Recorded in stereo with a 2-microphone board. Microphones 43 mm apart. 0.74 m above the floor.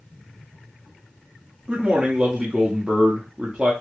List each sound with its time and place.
1.7 s a man speaking: 30° right (ahead or behind), 0.8 m